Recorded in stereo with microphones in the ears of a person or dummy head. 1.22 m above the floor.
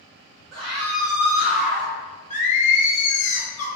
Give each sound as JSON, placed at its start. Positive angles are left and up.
{"t": 0.5, "sound": "a scream", "side_deg": -20, "distance_m": 1.2}
{"t": 2.3, "sound": "singing", "side_deg": 40, "distance_m": 0.9}